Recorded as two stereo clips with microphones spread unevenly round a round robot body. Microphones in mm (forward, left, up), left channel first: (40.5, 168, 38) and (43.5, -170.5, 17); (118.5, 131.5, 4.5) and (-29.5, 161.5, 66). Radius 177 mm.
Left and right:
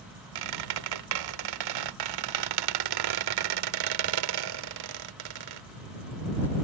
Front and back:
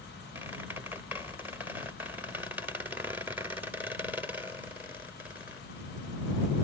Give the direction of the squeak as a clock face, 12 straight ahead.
3 o'clock.